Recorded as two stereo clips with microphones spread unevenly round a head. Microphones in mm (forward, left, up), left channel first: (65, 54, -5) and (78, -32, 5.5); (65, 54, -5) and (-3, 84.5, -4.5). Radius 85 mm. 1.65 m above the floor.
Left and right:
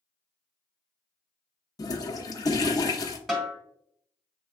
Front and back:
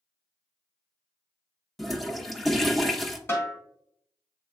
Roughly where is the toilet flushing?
Ahead left.